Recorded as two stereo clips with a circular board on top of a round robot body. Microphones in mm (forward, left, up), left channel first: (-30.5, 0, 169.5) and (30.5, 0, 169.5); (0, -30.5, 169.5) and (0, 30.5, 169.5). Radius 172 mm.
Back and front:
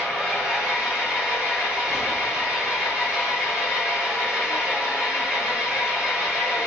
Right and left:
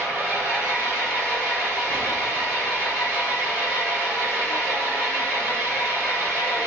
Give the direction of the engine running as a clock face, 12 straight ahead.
2 o'clock.